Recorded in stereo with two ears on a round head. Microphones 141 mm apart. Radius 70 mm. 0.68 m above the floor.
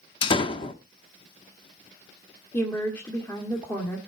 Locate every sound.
0.2 s a door slam: 30° left (ahead or behind), 0.8 m
2.5 s a woman speaking: 10° left (ahead or behind), 1.7 m